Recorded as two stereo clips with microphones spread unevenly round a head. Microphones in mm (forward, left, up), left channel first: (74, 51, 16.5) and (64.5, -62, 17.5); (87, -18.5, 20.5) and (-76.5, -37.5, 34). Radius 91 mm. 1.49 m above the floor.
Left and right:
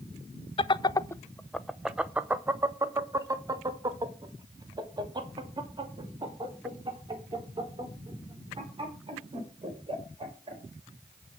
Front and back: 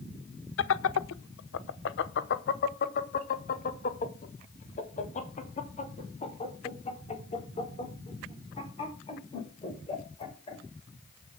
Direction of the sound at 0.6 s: 40° left.